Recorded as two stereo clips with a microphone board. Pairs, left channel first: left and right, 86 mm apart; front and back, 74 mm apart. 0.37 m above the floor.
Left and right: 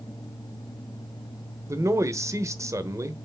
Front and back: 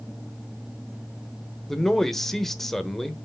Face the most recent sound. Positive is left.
turn(degrees=-85)